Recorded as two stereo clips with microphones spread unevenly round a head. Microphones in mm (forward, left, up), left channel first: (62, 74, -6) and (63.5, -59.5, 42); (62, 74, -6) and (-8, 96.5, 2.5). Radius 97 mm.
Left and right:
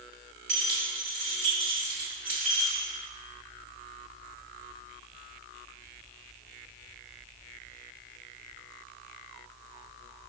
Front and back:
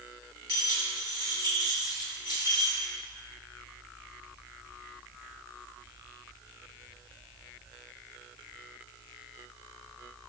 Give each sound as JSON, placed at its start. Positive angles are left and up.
{"t": 0.5, "sound": "keys jangling", "azimuth_deg": -140, "distance_m": 2.0}